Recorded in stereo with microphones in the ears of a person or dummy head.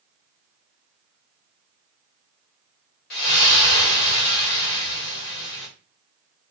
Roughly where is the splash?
Left.